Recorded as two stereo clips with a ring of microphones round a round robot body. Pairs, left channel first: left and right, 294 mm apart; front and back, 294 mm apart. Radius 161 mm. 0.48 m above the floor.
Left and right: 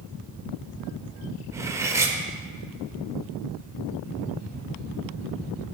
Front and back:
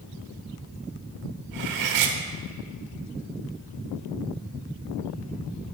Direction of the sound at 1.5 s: 170° right.